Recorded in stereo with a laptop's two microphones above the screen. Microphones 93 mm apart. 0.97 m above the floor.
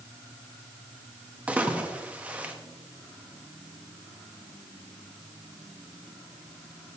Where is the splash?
15° right (ahead or behind), 0.9 m.